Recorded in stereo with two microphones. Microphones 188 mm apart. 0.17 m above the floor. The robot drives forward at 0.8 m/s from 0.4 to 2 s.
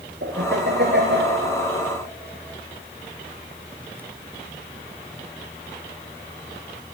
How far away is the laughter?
About 3 m.